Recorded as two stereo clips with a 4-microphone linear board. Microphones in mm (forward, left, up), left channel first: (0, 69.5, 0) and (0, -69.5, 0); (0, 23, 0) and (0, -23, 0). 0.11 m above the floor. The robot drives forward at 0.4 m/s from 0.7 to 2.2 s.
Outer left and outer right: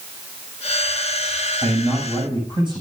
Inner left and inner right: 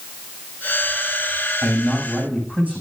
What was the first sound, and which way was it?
A man speaking, 35° right (ahead or behind).